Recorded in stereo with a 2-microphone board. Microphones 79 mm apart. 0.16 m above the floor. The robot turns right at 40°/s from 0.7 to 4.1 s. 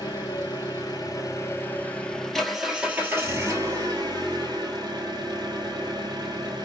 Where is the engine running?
110° left, 1.2 m; by 6.7 s 115° right, 1.2 m.